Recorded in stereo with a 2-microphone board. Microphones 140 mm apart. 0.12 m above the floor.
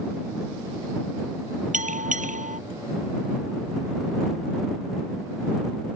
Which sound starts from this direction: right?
A bell, at 1.7 s.